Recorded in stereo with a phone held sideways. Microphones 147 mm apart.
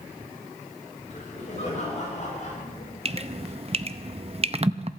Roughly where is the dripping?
Right.